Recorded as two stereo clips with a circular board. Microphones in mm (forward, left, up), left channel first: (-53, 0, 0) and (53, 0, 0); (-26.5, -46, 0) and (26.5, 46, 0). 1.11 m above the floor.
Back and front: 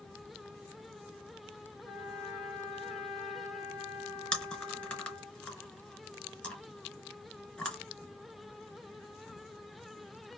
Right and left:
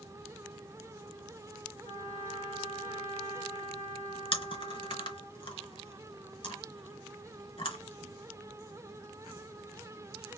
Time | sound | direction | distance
1.8 | a trumpet | 115° right | 1.0 m
4.3 | chewing | 105° right | 1.5 m